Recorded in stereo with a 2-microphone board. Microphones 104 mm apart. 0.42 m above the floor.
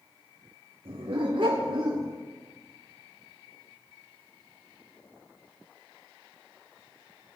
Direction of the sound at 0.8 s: 65° right (ahead or behind).